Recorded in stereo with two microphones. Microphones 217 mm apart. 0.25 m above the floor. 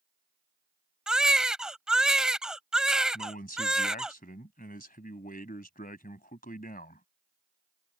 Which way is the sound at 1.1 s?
5° right (ahead or behind).